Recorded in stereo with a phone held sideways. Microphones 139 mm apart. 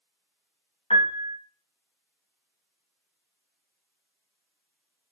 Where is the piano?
50° left (ahead or behind), 1.3 m.